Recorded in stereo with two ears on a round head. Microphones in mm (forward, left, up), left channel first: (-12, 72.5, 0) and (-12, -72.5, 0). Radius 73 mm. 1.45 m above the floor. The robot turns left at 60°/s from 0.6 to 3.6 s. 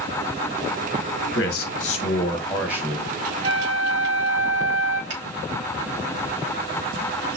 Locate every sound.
1.3 s a man speaking: 75° left, 1.5 m; by 3.3 s 45° right, 1.5 m
3.4 s a flute: 30° right (ahead or behind), 1.2 m; by 5.0 s 40° right (ahead or behind), 1.2 m
5.1 s a finger snap: 80° right, 2.5 m